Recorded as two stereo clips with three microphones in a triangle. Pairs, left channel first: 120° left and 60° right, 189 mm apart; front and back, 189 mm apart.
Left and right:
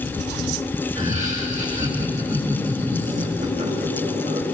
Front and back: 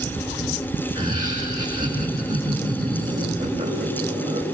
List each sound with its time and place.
0.9 s laughter: 115° right, 8.5 m